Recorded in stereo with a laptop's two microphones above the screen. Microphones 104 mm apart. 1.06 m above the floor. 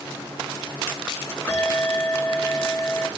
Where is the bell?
20° left (ahead or behind), 2.5 m.